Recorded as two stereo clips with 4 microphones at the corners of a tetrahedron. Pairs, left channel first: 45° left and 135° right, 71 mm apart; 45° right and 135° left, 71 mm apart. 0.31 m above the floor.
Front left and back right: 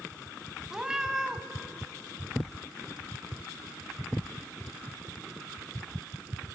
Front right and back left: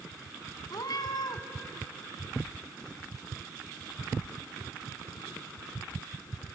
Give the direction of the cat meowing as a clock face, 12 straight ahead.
2 o'clock.